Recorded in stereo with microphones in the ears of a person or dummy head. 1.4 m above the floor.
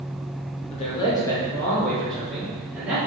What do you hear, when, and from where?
0.7 s a man speaking: 35° left (ahead or behind), 0.8 m; by 3.0 s 10° right (ahead or behind), 1.7 m